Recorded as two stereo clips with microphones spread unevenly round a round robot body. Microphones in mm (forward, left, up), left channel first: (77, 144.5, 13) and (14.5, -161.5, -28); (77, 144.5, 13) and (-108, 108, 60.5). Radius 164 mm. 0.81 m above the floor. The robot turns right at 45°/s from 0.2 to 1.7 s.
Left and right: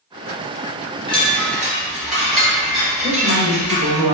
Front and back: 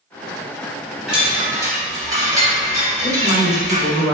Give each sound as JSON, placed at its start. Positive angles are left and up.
{"t": 1.1, "sound": "a chime", "azimuth_deg": 130, "distance_m": 0.7}
{"t": 3.0, "sound": "a woman speaking", "azimuth_deg": -50, "distance_m": 0.8}